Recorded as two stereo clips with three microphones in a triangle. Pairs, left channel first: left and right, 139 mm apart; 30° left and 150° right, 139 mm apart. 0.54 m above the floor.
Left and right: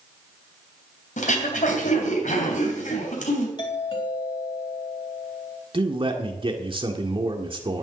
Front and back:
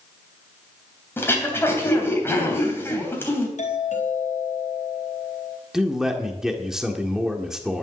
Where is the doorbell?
40° left, 4 m.